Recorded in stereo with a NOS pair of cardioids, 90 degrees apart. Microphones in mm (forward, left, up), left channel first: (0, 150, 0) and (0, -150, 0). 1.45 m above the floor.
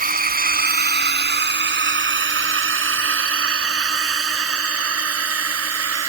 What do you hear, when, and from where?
0.0 s a drone: 25° right; by 6.1 s 50° right